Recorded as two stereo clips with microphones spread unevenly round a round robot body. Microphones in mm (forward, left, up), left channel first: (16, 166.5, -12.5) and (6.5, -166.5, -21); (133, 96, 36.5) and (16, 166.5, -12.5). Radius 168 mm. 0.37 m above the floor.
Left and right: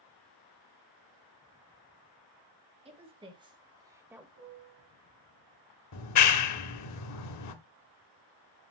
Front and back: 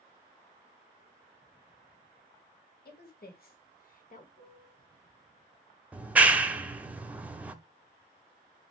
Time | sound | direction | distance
2.9 | a woman speaking | 20° right | 2.5 m
4.4 | a piano | 60° right | 5.5 m
5.9 | a clap | 100° left | 1.0 m